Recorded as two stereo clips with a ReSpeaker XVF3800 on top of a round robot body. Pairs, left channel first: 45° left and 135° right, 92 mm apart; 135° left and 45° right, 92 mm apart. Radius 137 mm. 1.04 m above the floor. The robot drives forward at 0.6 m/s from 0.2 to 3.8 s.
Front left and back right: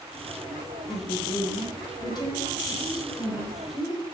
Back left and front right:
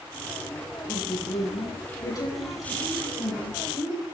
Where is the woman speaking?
85° left, 9 m; by 4.0 s 95° left, 9 m.